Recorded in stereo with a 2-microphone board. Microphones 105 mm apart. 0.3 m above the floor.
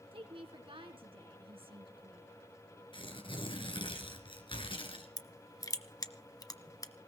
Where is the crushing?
35° left (ahead or behind), 1.0 m.